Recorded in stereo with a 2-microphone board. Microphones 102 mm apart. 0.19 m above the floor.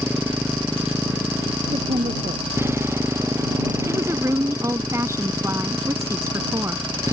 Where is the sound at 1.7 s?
80° right.